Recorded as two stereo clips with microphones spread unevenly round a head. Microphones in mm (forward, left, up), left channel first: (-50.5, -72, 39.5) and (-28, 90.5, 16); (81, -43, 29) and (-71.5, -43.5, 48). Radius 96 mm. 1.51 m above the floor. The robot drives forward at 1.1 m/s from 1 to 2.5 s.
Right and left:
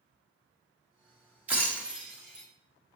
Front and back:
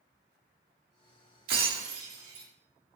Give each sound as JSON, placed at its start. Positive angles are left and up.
{"t": 1.5, "sound": "breaking glass", "azimuth_deg": 165, "distance_m": 1.3}